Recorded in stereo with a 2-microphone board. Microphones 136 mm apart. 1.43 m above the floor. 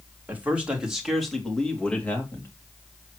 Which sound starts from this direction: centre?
A man speaking, at 0.3 s.